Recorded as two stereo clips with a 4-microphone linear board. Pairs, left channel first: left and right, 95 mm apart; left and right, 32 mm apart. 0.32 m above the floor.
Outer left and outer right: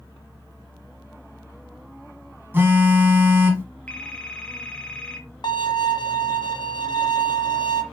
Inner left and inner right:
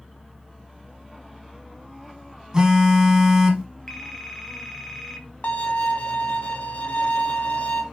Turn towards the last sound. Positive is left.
turn(degrees=45)  # may be behind; listen again after turning